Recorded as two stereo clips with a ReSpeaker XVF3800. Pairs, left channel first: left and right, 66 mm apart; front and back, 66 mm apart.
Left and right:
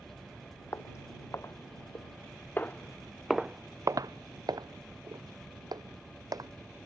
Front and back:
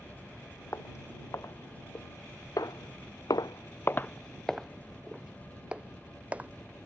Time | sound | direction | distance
0.7 | footsteps | 45° left | ?